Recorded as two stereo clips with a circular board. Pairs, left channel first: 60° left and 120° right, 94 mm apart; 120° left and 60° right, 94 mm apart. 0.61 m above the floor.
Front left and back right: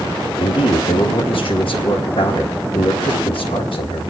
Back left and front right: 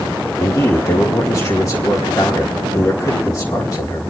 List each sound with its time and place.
0.4 s a man speaking: 75° left, 3.5 m